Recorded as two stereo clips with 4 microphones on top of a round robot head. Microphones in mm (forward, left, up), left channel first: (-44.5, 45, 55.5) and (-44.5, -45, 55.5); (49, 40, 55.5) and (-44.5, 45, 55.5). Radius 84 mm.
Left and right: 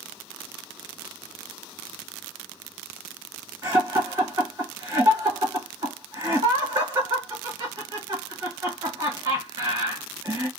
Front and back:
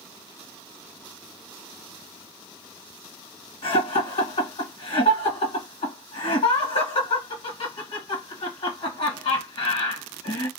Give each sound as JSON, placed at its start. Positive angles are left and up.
{"t": 3.6, "sound": "laughter", "azimuth_deg": -35, "distance_m": 1.3}